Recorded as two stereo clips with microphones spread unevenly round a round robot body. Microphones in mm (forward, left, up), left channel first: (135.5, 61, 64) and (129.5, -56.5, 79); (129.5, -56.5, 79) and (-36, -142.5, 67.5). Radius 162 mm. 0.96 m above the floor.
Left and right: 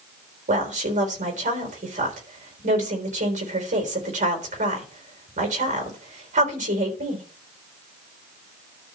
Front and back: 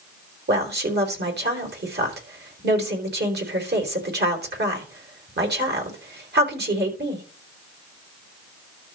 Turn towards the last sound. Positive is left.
turn(degrees=-125)